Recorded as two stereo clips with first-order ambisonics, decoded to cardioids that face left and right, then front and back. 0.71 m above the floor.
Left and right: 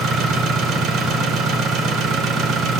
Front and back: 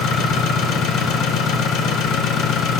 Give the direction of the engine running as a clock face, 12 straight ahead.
1 o'clock.